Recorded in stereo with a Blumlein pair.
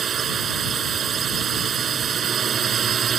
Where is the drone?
25° right.